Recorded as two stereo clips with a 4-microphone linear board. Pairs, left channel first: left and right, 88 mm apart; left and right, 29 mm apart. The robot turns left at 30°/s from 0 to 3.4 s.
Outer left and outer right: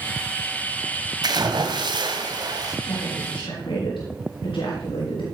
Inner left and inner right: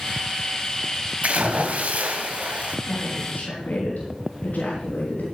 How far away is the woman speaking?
About 4 m.